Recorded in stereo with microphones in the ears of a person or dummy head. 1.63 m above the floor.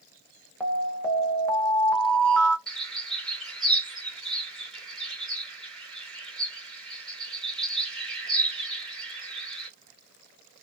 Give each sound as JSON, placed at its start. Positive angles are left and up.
{"t": 0.6, "sound": "an alarm", "side_deg": 5, "distance_m": 0.7}
{"t": 2.7, "sound": "a bird", "side_deg": 0, "distance_m": 1.3}